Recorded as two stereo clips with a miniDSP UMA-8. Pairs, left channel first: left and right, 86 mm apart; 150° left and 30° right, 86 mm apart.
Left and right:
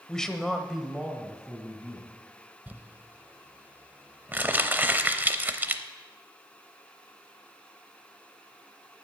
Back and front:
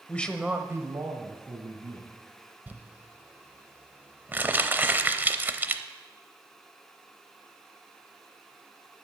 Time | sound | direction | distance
0.1 | a man speaking | 155° left | 0.9 m
2.7 | crumpling | 60° right | 0.7 m